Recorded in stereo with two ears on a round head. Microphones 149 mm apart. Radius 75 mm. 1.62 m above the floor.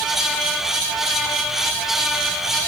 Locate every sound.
Only background noise.